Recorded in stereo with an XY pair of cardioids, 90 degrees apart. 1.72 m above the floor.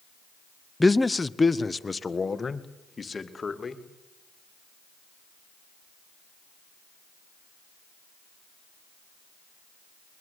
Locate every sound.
0.8 s a man speaking: 15° left, 0.7 m; by 3.8 s 35° left, 3 m